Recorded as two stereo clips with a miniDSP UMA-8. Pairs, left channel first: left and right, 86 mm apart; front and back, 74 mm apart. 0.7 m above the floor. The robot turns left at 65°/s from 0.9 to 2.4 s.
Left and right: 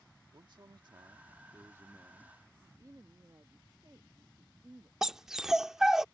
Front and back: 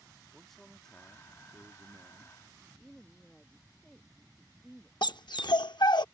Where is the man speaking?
85° right; by 2.5 s straight behind.